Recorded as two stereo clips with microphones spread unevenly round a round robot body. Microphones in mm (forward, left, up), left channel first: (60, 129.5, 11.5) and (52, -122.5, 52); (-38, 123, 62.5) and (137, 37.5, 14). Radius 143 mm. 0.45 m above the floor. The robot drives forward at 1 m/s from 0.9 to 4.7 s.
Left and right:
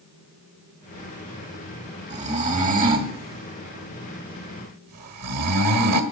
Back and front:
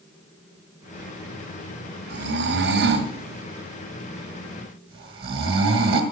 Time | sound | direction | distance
2.1 | snoring | 30° right | 3 m